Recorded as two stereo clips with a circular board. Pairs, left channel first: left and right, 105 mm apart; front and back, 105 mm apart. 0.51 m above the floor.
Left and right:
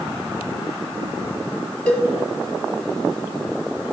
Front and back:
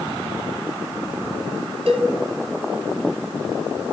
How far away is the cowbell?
About 1.2 m.